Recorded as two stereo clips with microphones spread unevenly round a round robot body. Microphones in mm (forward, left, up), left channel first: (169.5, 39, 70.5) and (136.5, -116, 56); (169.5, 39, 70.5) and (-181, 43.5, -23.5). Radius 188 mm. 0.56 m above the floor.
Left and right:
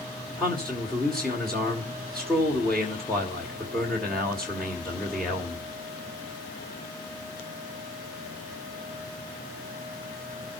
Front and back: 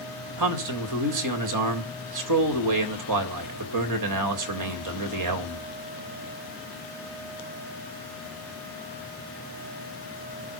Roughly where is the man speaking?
Behind.